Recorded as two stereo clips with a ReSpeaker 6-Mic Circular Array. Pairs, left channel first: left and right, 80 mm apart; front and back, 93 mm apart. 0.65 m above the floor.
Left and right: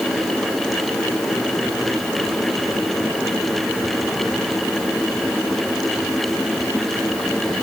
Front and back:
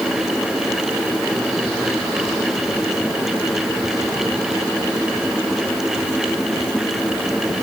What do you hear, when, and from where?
Only background noise.